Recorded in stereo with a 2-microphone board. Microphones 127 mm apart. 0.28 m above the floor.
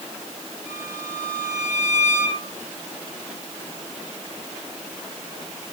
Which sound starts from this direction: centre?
A violin, at 0.7 s.